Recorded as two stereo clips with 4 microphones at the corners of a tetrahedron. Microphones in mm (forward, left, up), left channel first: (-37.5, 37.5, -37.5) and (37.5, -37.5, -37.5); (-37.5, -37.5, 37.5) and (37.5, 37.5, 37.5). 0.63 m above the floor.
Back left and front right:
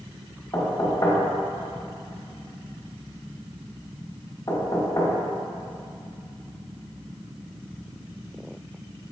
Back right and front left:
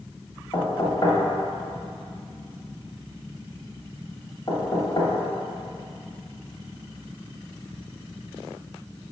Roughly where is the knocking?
Behind.